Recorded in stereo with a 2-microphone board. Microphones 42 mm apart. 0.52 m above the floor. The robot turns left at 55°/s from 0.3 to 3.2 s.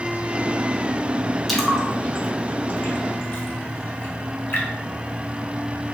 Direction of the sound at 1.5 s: Centre (ahead or behind).